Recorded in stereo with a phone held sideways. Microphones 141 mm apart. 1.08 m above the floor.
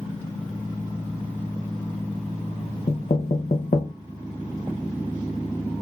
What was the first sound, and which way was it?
Knocking, 55° left (ahead or behind).